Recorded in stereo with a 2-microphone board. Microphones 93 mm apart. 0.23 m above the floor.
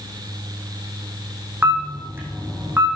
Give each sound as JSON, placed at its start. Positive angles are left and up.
{"t": 1.6, "sound": "a camera shutter", "side_deg": -25, "distance_m": 5.5}